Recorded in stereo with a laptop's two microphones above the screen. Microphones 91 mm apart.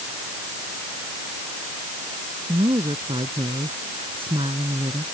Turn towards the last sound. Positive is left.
turn(degrees=-75)  # may be behind; listen again after turning